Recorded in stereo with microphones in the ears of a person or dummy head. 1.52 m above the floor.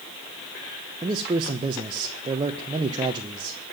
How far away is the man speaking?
About 1.1 m.